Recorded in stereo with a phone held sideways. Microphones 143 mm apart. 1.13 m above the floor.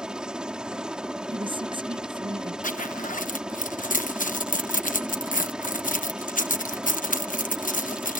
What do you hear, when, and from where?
0.0 s a helicopter: 5° right (ahead or behind)
1.3 s a woman speaking: 35° right (ahead or behind)
2.6 s a zipper: 60° left (ahead or behind)